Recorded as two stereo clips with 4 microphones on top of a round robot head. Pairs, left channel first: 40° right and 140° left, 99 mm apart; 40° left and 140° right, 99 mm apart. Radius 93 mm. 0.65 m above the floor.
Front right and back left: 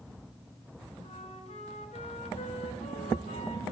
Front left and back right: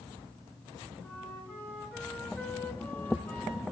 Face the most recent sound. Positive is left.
turn(degrees=-30)